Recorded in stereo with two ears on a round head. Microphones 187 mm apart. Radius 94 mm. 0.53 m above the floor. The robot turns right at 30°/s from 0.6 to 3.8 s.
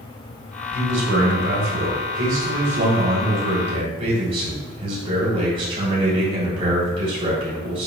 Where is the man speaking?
120° right, 3 m; by 7.9 s 30° right, 3 m.